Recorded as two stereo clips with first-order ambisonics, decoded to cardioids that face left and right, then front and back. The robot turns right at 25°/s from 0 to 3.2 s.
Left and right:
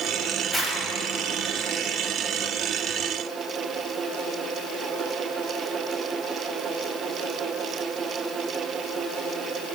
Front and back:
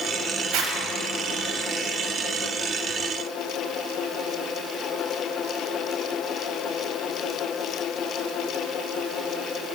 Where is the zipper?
175° left, 1.2 m; by 0.8 s straight behind, 1.2 m.